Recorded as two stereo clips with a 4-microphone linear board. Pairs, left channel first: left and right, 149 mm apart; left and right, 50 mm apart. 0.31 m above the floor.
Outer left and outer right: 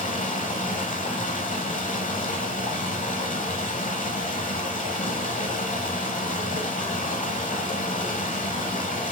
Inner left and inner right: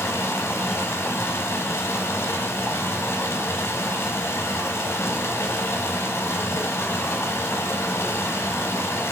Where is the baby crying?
I don't hear a baby crying.